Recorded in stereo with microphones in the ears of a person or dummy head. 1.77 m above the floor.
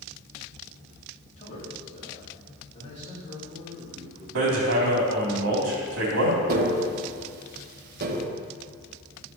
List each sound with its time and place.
1.4 s a man speaking: 35° left (ahead or behind), 4 m; by 4.2 s 30° left (ahead or behind), 6.5 m
4.3 s hammering: 80° right, 3.5 m
6.5 s tapping: 55° right (ahead or behind), 1.8 m